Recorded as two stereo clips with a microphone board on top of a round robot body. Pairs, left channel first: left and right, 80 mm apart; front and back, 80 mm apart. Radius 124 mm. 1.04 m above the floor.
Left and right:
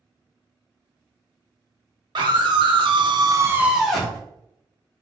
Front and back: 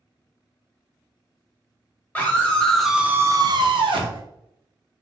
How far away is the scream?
About 1.1 m.